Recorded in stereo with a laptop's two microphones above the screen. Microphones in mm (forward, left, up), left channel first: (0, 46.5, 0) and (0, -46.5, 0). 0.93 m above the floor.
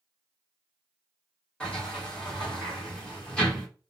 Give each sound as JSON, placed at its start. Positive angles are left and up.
{"t": 1.6, "sound": "a sliding door", "side_deg": 15, "distance_m": 1.7}